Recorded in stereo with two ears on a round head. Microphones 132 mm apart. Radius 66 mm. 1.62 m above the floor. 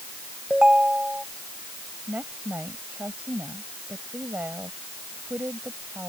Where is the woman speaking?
10° right (ahead or behind).